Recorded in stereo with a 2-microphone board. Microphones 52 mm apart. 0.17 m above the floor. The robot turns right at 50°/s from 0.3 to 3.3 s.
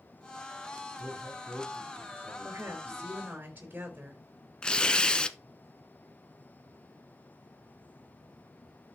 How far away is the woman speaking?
About 3.5 m.